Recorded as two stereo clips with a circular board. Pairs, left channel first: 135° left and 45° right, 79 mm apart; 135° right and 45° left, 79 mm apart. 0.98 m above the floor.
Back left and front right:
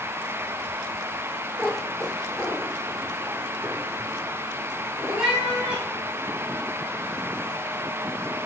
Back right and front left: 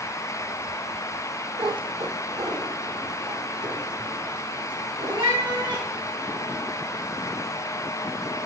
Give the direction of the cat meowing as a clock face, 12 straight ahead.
10 o'clock.